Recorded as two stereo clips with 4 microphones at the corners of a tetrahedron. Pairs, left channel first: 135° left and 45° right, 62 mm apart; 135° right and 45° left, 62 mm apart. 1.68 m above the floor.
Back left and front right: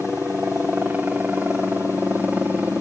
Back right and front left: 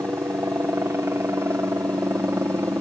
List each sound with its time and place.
0.0 s a helicopter: 15° left